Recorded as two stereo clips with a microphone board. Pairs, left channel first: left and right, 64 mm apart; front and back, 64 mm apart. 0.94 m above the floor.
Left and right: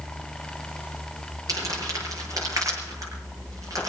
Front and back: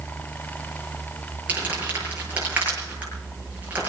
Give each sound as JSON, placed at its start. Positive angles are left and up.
{"t": 1.5, "sound": "crumpling", "azimuth_deg": -115, "distance_m": 7.5}